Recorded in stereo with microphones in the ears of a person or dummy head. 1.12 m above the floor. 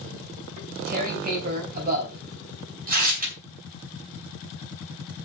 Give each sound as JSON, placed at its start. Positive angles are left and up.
{"t": 0.6, "sound": "tearing paper", "side_deg": -45, "distance_m": 3.5}